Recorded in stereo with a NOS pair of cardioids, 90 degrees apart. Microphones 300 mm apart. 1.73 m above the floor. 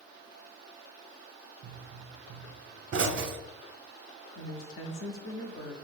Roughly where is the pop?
Ahead right.